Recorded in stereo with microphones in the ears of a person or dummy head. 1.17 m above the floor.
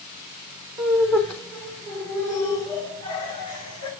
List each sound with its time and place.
0.8 s laughter: centre (ahead or behind), 3 m; by 3.9 s 30° left (ahead or behind), 4.5 m